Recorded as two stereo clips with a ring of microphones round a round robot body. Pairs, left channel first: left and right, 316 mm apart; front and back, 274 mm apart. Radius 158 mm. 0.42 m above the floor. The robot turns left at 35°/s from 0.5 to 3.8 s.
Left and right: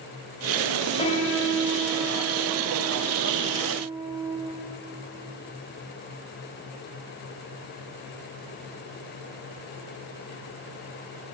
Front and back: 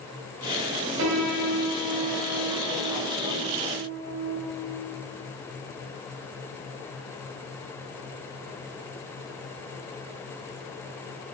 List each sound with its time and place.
1.0 s a piano: 160° left, 2.5 m; by 4.4 s 65° left, 2.5 m